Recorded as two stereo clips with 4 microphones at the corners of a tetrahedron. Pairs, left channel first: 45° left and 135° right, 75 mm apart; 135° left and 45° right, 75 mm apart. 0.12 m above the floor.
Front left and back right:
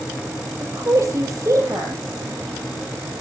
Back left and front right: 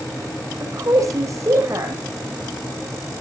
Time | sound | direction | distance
0.6 | a woman speaking | 85° right | 6 m